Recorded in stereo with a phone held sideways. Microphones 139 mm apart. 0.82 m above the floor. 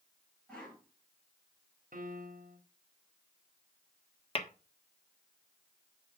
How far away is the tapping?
About 1.3 m.